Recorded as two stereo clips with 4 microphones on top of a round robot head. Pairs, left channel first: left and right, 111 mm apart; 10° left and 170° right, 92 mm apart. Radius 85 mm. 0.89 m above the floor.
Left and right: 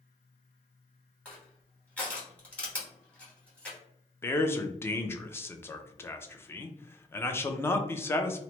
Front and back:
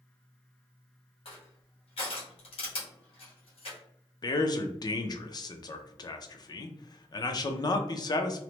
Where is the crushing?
10° left, 1.5 m.